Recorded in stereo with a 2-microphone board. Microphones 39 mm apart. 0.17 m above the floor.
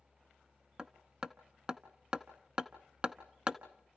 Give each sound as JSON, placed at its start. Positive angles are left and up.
{"t": 0.8, "sound": "hammering", "side_deg": -25, "distance_m": 0.9}